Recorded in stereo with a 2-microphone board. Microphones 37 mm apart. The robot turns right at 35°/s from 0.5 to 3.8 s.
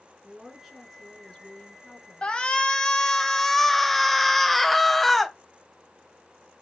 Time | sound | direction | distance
0.2 | a woman speaking | 10° right | 3 m
2.2 | a shout | 25° left (ahead or behind) | 1.0 m